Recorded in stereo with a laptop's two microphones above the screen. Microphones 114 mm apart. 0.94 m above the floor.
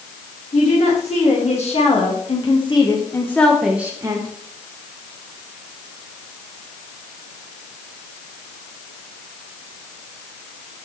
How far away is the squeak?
I don't hear a squeak.